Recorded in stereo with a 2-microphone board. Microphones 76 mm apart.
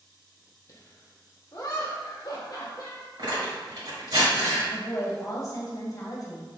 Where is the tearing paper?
65° right (ahead or behind), 1.8 m.